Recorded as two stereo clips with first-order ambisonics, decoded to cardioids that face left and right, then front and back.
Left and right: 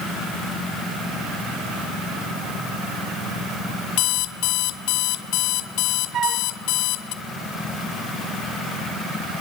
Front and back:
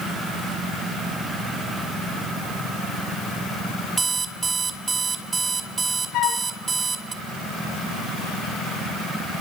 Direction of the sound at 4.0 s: 105° left.